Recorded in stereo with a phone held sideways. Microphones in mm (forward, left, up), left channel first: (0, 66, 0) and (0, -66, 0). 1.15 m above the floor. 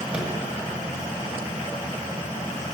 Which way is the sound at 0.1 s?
10° right (ahead or behind).